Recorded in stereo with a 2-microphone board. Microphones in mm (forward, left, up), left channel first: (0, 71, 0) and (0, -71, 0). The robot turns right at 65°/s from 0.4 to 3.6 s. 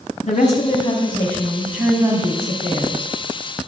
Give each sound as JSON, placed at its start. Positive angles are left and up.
{"t": 0.2, "sound": "a woman speaking", "azimuth_deg": 95, "distance_m": 2.5}